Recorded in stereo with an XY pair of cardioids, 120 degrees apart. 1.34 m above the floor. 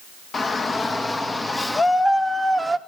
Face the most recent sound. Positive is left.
turn(degrees=-10)